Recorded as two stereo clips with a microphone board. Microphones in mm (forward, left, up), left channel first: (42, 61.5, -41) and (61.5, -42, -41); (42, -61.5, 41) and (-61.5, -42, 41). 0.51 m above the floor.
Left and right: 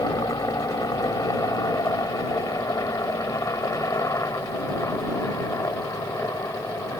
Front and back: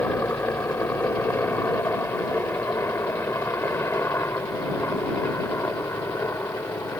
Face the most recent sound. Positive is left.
turn(degrees=45)